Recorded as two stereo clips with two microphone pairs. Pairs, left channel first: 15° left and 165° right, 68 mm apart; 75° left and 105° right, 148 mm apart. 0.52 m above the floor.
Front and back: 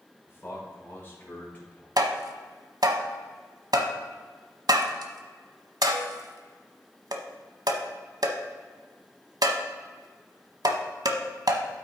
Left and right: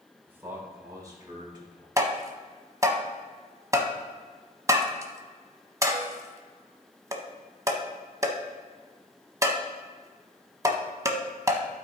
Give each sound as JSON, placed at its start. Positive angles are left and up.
{"t": 0.3, "sound": "a man speaking", "azimuth_deg": -30, "distance_m": 2.0}
{"t": 2.0, "sound": "tapping", "azimuth_deg": -175, "distance_m": 0.9}